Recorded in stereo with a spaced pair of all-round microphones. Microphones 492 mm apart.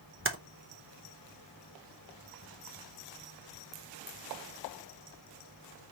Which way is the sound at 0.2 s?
25° right (ahead or behind).